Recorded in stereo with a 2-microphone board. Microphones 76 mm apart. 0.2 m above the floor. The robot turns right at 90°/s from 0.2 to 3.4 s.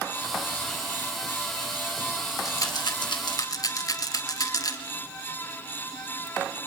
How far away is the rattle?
About 1.9 m.